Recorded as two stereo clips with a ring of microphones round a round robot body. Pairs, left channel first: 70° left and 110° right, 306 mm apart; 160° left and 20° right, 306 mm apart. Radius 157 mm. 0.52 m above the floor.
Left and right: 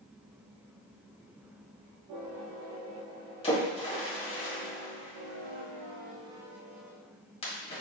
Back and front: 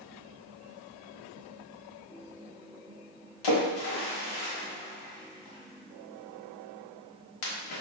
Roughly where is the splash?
Behind left.